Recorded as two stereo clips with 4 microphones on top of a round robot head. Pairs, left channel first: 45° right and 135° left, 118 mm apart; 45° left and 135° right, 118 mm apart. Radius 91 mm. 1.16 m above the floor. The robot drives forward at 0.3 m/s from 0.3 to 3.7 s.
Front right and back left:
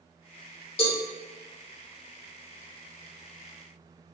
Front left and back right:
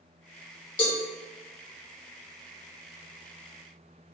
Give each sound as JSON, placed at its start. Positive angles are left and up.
{"t": 0.8, "sound": "a cowbell", "azimuth_deg": 0, "distance_m": 2.5}